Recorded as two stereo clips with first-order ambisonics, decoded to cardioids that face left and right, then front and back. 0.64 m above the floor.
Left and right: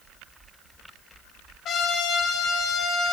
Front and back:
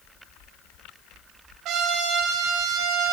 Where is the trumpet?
145° left, 3.5 m.